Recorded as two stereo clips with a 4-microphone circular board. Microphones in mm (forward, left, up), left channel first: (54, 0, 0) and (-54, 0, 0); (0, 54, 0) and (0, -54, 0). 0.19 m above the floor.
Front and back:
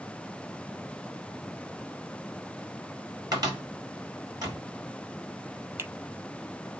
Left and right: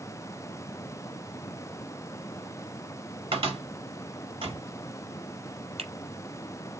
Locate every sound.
3.3 s a cupboard door: 125° right, 4.5 m
5.8 s a finger snap: 115° right, 5 m